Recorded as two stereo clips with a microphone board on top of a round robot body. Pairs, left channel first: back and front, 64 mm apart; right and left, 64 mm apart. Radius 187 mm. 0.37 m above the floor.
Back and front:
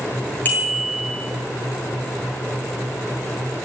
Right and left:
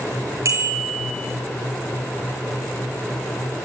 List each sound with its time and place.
0.5 s a bicycle bell: 120° left, 7.5 m